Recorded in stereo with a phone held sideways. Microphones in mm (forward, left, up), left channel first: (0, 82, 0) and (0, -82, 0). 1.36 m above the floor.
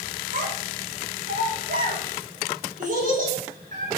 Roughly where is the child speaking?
Right.